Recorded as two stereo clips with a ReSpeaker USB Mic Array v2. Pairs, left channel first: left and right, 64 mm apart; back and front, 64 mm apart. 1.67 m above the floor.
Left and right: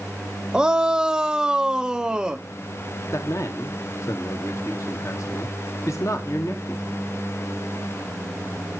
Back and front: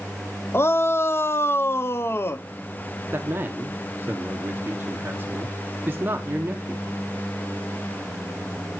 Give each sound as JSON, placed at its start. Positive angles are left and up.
{"t": 0.5, "sound": "a shout", "azimuth_deg": -160, "distance_m": 0.6}
{"t": 3.1, "sound": "a man speaking", "azimuth_deg": 55, "distance_m": 1.0}